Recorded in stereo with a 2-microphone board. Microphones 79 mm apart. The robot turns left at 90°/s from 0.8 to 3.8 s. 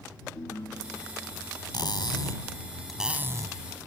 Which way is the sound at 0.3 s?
50° left.